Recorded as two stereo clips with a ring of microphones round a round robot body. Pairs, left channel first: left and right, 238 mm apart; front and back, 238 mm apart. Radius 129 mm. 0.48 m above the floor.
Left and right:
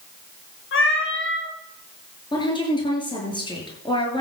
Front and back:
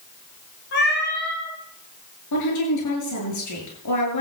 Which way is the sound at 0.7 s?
55° left.